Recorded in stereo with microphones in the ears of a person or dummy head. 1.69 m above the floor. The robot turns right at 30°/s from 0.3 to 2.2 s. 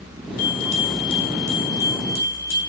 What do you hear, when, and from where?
0.4 s a bell: 50° left, 1.7 m; by 2.6 s 105° left, 1.7 m